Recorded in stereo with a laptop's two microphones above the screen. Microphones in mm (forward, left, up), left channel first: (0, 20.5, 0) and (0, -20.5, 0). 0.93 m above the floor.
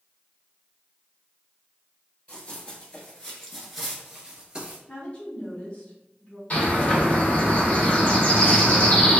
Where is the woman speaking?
30° left (ahead or behind), 0.8 m.